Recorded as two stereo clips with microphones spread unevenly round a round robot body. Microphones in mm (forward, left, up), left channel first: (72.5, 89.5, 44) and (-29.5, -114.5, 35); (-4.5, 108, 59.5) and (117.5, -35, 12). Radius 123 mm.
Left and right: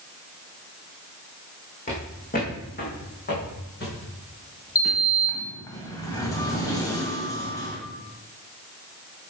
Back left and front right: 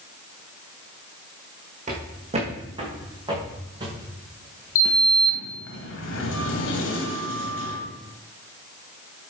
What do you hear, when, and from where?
1.9 s footsteps: 5° left, 3.5 m; by 5.1 s 25° left, 6.5 m
4.8 s a sliding door: 140° left, 1.7 m